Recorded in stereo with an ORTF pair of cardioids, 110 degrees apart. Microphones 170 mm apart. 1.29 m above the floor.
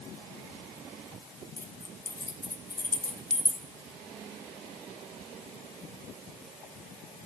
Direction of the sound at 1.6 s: 15° left.